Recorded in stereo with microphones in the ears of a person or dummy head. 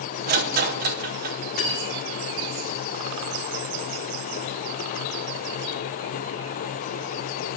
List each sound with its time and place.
0.3 s a rattle: 35° right (ahead or behind), 0.8 m
1.6 s cutlery clinking: 45° left (ahead or behind), 3 m